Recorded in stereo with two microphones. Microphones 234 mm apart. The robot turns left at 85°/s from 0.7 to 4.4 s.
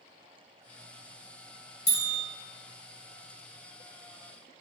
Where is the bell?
40° right (ahead or behind), 1.4 m; by 2.2 s 45° right (ahead or behind), 1.4 m.